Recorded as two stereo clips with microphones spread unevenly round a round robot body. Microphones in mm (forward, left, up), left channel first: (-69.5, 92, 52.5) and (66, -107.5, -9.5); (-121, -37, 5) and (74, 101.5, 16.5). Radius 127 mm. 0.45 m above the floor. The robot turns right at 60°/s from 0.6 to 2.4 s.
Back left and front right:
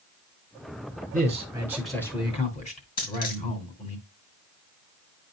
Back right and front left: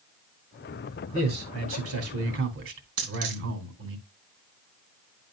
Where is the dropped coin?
65° left, 2.5 m.